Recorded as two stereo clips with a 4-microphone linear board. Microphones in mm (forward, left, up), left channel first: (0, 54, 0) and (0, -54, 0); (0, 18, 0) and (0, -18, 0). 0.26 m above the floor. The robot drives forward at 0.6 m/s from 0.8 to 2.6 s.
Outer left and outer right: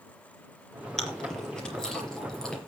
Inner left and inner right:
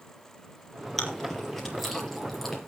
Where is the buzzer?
I don't hear a buzzer.